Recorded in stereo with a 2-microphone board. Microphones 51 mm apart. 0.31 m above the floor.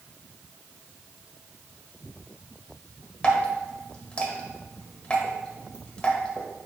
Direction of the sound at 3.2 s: 20° left (ahead or behind).